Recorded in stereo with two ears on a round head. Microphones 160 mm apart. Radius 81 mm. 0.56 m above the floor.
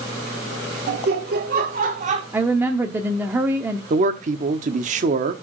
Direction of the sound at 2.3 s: 10° right (ahead or behind).